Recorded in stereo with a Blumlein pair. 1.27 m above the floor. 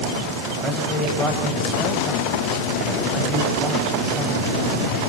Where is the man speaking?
Straight ahead, 7 m.